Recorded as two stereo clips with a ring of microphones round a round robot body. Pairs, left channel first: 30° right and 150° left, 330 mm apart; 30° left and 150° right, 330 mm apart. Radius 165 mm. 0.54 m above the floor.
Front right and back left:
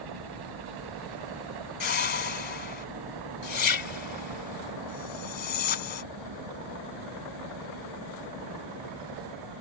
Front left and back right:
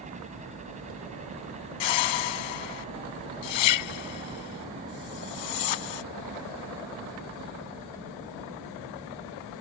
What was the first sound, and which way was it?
A helicopter, 140° left.